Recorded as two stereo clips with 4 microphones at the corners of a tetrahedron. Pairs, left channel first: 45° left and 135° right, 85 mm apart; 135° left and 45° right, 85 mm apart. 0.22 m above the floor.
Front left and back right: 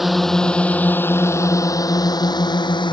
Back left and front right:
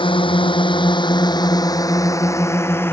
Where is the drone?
135° left; by 2.9 s 70° left.